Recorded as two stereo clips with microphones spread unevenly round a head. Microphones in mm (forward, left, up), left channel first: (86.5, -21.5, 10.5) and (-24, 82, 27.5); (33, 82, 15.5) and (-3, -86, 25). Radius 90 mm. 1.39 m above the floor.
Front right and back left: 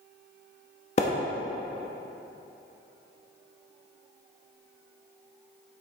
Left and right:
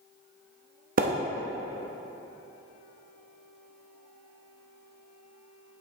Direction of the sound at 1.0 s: 95° right.